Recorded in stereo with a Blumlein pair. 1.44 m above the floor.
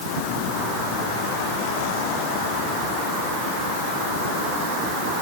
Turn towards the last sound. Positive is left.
No sound to turn to.